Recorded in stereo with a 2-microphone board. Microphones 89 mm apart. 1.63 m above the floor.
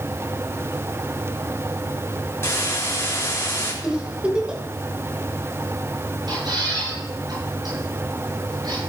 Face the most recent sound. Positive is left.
turn(degrees=-55)  # may be behind; listen again after turning